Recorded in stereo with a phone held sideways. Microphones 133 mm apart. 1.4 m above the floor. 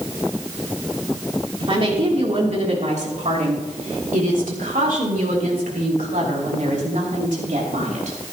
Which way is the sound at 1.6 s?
40° right (ahead or behind).